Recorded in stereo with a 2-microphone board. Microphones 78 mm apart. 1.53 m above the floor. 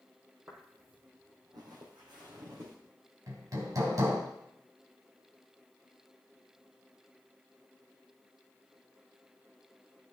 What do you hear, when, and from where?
0.5 s footsteps: 35° right (ahead or behind), 2 m; by 2.8 s 70° right (ahead or behind), 5 m
3.3 s hammering: 50° right (ahead or behind), 2.5 m